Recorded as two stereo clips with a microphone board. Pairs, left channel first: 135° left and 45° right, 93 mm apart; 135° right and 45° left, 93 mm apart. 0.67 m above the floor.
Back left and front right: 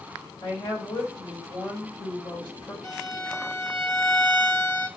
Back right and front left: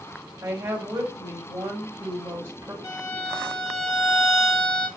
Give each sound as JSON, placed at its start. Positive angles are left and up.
{"t": 0.4, "sound": "a woman speaking", "azimuth_deg": 110, "distance_m": 2.5}
{"t": 2.8, "sound": "a violin", "azimuth_deg": -175, "distance_m": 1.6}